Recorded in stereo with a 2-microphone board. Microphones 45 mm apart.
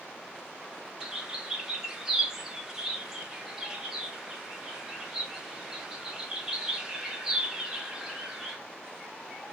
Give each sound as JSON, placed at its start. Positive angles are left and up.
{"t": 1.0, "sound": "a bird", "side_deg": -15, "distance_m": 0.8}